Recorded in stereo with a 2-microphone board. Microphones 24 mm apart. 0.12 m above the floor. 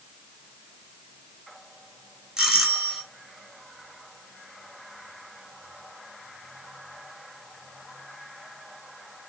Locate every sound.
2.4 s a doorbell: 25° right (ahead or behind), 1.8 m